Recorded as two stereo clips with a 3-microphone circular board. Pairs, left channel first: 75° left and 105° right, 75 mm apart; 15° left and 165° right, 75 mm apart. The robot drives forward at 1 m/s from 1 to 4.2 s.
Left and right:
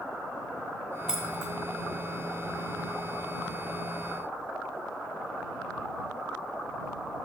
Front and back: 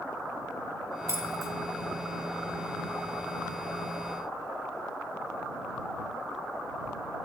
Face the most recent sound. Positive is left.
turn(degrees=180)